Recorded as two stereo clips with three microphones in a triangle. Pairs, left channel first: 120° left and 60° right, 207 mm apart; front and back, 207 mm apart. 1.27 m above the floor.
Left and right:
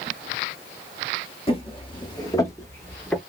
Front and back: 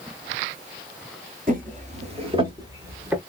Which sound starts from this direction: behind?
Footsteps, at 1.5 s.